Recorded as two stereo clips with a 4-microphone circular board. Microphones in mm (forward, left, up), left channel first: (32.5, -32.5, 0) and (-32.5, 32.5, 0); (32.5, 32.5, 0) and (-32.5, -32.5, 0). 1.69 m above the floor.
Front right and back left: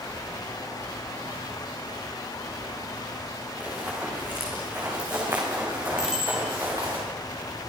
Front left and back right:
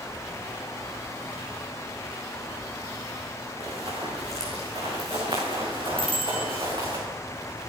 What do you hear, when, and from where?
3.6 s running footsteps: 155° right, 7.5 m; by 7.0 s 175° right, 8.5 m
6.0 s a bicycle bell: 145° right, 5.5 m